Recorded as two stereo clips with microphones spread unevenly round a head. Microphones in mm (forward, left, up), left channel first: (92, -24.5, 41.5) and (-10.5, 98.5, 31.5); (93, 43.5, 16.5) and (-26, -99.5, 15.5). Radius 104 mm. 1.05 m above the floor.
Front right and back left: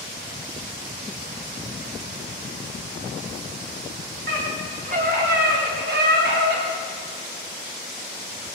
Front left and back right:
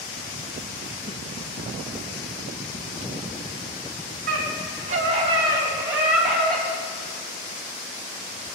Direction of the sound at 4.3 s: 175° right.